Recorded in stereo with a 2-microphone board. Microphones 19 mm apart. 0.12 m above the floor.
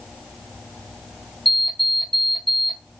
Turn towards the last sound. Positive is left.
turn(degrees=5)  # may be behind; listen again after turning